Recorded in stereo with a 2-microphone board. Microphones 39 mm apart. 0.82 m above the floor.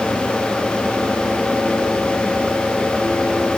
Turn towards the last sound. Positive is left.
No sound to turn to.